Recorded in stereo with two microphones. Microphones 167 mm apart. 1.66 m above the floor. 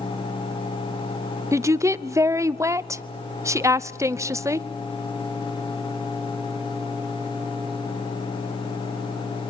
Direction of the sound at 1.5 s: 20° right (ahead or behind).